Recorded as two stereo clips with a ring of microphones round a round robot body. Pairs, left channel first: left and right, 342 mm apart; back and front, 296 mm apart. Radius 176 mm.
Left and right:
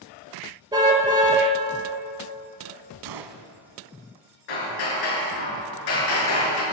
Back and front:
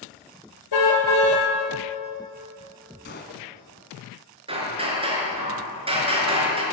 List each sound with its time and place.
0.7 s a car horn: 170° right, 3.5 m
3.0 s a gunshot: 115° right, 1.1 m
4.5 s hammering: 70° left, 5 m